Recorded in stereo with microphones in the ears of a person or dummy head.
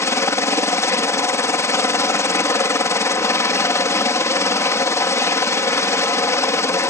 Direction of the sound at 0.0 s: 15° left (ahead or behind).